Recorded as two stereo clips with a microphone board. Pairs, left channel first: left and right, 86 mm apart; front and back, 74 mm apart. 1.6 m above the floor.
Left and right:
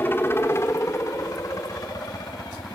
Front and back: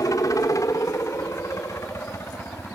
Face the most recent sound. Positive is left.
turn(degrees=50)